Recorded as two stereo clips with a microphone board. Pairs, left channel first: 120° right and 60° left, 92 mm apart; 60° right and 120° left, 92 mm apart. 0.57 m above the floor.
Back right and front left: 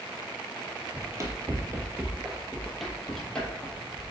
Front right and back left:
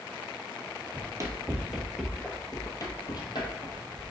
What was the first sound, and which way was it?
Running footsteps, 100° left.